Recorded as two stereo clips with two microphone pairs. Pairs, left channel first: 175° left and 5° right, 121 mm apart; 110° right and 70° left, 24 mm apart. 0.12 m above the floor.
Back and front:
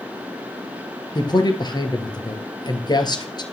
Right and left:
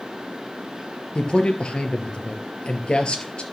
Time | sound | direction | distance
1.1 | a man speaking | 140° right | 2.5 m